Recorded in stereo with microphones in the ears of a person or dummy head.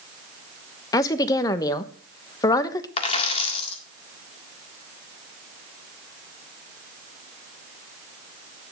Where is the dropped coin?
35° left (ahead or behind), 1.8 m.